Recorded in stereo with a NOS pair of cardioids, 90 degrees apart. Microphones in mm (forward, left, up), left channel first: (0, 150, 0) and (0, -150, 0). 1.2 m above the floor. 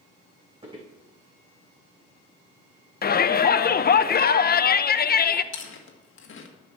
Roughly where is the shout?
Ahead left.